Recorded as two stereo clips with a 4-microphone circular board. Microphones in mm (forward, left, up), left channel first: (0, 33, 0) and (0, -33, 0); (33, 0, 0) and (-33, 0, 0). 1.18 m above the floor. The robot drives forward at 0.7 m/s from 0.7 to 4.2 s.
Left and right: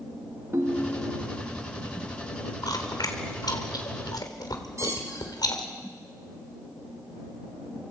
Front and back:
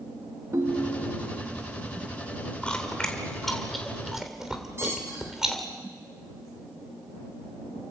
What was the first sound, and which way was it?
A ringtone, 135° right.